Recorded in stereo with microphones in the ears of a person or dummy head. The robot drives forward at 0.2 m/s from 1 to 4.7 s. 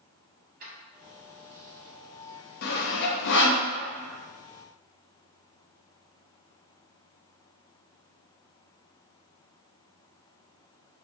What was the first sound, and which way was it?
Keys jangling, 45° right (ahead or behind).